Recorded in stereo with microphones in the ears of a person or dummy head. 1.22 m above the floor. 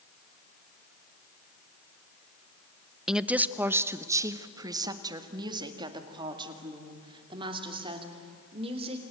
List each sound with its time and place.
3.1 s a woman speaking: 5° right (ahead or behind), 0.8 m; by 9.0 s 35° right (ahead or behind), 3.5 m